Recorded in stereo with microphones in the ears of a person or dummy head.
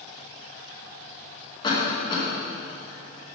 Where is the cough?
30° left (ahead or behind), 2.0 m.